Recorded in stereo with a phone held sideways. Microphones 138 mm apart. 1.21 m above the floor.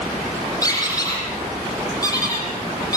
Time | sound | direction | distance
0.6 | a squeak | 25° left (ahead or behind) | 8 m